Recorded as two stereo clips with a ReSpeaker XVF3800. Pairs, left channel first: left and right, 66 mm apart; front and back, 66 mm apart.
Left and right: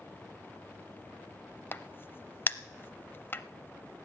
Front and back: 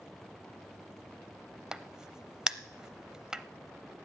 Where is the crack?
110° left, 0.5 m.